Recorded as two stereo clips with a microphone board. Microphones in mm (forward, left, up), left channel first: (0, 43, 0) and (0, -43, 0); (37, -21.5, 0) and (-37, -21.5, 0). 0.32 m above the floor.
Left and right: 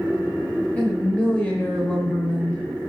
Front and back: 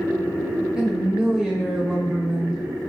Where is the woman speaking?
125° left, 0.9 m.